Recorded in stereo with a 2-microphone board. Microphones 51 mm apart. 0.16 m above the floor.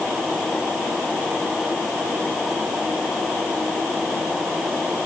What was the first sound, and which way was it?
Only background noise.